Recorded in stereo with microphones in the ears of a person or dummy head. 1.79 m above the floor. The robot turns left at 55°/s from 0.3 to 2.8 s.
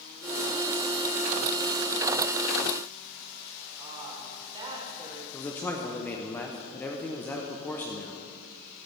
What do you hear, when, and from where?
3.8 s a woman speaking: 20° right (ahead or behind), 3 m
5.3 s a man speaking: 15° left (ahead or behind), 1.0 m